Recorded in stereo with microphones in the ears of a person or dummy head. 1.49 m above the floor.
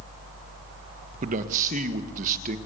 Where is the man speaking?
40° right (ahead or behind), 1.8 m.